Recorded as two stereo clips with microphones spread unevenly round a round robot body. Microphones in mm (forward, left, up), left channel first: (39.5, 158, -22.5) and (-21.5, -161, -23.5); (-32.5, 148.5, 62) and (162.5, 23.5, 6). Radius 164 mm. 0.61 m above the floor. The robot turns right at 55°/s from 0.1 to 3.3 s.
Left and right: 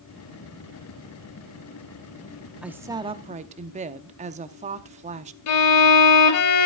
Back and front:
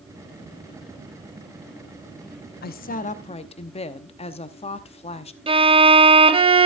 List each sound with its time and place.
2.6 s a woman speaking: 175° left, 0.7 m; by 5.4 s 145° right, 0.7 m
5.5 s a violin: 35° left, 1.4 m